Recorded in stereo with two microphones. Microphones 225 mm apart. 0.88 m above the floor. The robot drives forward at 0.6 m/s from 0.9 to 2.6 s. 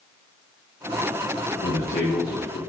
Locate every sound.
1.6 s a man speaking: 65° left (ahead or behind), 2.5 m; by 2.6 s 60° left (ahead or behind), 2.5 m